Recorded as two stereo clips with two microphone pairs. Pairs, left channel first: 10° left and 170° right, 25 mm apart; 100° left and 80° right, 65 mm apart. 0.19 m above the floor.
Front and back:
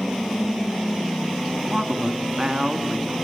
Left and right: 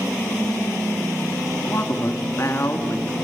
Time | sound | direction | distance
1.6 | a man speaking | 135° left | 2.5 m